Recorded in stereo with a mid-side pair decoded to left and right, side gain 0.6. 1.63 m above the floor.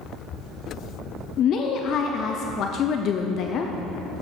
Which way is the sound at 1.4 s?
50° left.